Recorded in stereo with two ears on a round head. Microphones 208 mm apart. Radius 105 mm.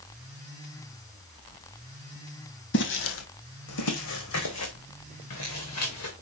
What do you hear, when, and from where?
2.7 s footsteps: 50° left (ahead or behind), 1.6 m; by 6.2 s 75° left (ahead or behind), 4 m